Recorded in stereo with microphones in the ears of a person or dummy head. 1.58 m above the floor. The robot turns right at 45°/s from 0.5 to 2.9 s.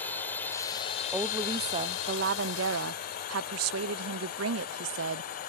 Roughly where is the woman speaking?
Behind.